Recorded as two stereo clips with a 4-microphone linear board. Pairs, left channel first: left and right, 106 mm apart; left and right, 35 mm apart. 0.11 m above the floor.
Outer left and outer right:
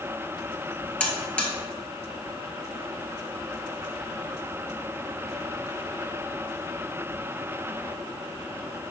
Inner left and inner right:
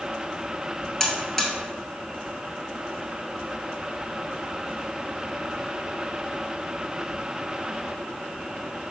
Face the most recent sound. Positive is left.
turn(degrees=10)  # may be behind; listen again after turning